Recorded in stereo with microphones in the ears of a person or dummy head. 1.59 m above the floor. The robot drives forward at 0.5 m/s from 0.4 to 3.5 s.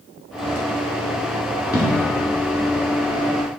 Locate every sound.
1.7 s an explosion: 20° left (ahead or behind), 1.9 m